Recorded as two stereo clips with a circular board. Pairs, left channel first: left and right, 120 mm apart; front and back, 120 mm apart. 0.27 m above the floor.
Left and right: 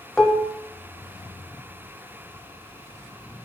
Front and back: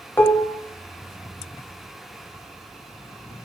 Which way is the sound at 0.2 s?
20° left.